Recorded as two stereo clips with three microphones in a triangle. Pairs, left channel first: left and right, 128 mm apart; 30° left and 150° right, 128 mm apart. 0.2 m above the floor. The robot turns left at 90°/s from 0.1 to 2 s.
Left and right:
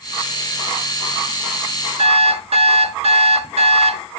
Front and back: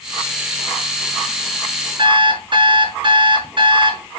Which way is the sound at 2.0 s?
105° right.